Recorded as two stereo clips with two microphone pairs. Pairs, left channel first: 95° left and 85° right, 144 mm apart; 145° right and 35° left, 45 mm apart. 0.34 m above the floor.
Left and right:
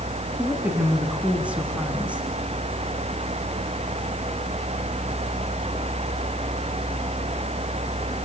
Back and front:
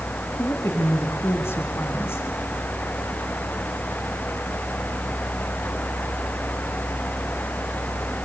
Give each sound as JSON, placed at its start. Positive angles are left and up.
{"t": 0.4, "sound": "a woman speaking", "azimuth_deg": -165, "distance_m": 3.5}